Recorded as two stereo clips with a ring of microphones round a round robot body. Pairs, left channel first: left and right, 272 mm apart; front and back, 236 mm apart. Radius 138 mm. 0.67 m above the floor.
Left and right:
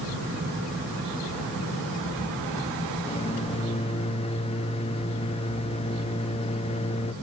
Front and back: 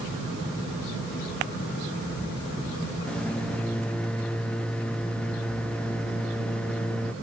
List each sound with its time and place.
3.1 s a microwave: 80° left, 0.5 m